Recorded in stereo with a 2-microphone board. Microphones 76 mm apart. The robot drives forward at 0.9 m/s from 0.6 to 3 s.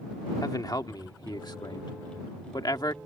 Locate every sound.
0.4 s a man speaking: 55° left (ahead or behind); by 3.0 s 60° left (ahead or behind)